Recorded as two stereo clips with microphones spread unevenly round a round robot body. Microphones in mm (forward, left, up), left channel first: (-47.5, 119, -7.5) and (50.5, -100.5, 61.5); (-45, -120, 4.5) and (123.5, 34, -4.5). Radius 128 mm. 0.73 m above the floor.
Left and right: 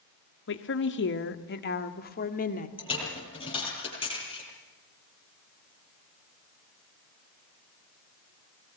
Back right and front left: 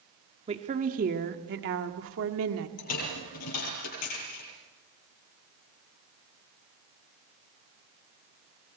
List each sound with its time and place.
0.5 s a woman speaking: 110° left, 1.8 m; by 2.7 s 65° left, 2 m
2.8 s a dropped coin: 175° right, 10 m